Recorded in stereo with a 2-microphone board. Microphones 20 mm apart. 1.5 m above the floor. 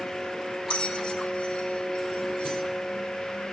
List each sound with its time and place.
0.7 s a bell: 60° left (ahead or behind), 1.2 m